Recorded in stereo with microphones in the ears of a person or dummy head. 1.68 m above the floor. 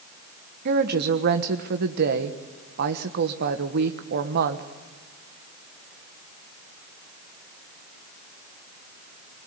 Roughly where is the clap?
No clap in this recording.